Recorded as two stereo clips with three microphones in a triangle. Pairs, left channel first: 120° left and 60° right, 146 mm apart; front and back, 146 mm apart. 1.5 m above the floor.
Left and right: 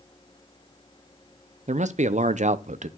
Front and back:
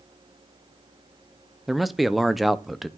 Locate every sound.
1.7 s a man speaking: 90° right, 0.5 m